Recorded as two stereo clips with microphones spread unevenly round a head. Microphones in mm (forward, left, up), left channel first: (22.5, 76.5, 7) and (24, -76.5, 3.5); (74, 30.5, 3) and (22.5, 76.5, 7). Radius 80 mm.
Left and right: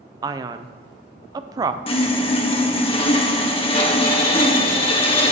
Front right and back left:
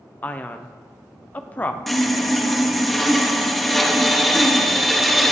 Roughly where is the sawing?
Ahead left.